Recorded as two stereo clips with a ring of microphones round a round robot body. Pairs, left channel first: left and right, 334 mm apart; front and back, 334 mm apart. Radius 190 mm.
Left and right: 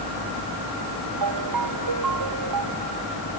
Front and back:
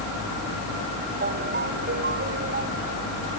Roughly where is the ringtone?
Behind right.